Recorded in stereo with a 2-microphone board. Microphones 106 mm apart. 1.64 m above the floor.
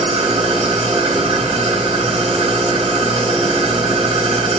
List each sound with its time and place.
0.0 s an engine running: 70° right (ahead or behind), 5 m